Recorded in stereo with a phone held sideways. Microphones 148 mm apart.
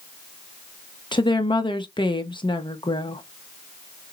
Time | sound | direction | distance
1.1 | a woman speaking | 35° left (ahead or behind) | 0.9 m